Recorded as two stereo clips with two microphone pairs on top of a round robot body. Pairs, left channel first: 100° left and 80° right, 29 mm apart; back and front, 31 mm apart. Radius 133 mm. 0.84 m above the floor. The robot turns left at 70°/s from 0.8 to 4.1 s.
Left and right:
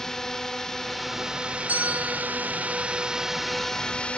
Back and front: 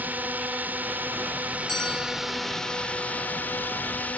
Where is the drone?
20° left; by 4.2 s 145° left.